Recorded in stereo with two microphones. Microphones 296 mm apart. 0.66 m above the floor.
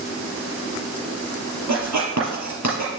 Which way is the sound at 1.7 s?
70° right (ahead or behind).